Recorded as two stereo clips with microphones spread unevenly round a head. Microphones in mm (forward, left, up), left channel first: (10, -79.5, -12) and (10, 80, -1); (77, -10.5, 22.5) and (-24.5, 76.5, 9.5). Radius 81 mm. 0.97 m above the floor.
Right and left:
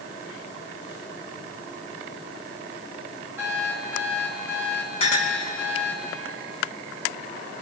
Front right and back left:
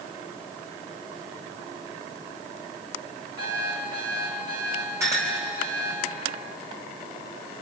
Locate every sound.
3.4 s an alarm clock: 165° left, 7 m
5.0 s a clink: 145° right, 3.5 m